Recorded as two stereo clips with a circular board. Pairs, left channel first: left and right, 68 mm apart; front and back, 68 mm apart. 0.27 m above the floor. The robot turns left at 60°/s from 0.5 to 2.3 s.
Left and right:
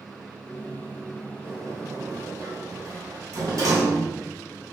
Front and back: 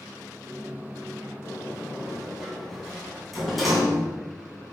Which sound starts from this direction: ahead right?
A sliding door, at 1.4 s.